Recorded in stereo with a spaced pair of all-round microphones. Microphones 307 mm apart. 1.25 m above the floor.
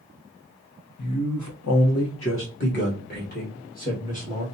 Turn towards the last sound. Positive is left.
turn(degrees=25)  # may be behind; listen again after turning